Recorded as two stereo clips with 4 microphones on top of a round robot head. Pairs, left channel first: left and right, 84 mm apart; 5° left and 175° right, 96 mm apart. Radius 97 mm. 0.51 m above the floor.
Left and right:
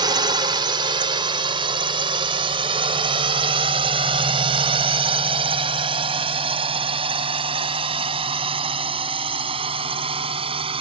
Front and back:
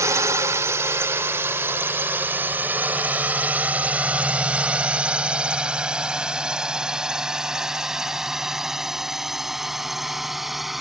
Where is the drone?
115° right; by 10.8 s 85° right.